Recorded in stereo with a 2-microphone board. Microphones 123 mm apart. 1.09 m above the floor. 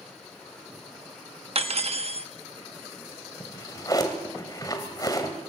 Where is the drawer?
30° left (ahead or behind), 1.9 m.